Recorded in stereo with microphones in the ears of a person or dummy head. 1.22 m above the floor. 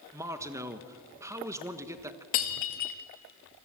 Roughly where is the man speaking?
Centre.